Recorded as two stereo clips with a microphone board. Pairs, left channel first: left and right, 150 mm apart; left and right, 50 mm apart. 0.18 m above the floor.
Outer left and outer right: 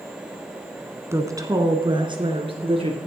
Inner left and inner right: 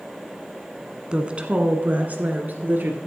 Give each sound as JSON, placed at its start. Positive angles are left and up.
{"t": 1.1, "sound": "a woman speaking", "side_deg": -20, "distance_m": 1.5}